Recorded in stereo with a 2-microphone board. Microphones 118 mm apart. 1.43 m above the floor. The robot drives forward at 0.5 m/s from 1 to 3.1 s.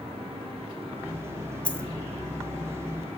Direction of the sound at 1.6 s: 10° left (ahead or behind).